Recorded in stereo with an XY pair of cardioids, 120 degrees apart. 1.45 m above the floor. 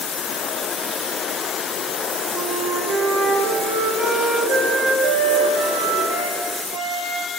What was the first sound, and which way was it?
A flute, 65° right.